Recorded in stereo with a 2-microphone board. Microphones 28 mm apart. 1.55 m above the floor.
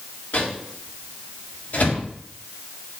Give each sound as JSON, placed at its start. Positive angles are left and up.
{"t": 0.3, "sound": "a microwave", "side_deg": 70, "distance_m": 3.5}